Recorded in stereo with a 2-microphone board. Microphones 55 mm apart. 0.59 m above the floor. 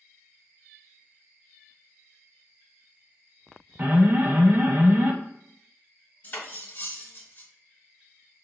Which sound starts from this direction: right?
An alarm, at 3.8 s.